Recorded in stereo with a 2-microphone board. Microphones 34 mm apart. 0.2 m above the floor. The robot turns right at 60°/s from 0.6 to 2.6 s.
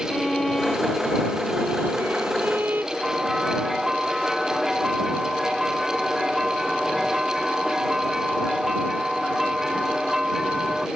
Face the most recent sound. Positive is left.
turn(degrees=-10)  # may be behind; listen again after turning